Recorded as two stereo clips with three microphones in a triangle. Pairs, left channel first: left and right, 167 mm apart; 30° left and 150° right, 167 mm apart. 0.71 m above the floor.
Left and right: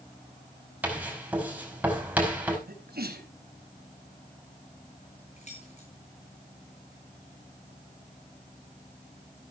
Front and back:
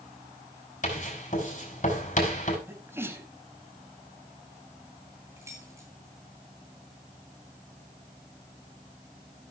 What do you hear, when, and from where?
0.8 s writing: 10° right, 5 m
2.7 s a sneeze: 75° right, 5 m
5.4 s keys jangling: 135° left, 8 m